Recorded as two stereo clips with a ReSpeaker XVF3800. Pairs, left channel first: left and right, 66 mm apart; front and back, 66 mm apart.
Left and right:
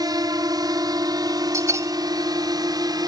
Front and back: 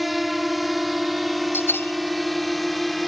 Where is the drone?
95° right; by 3.1 s 90° right.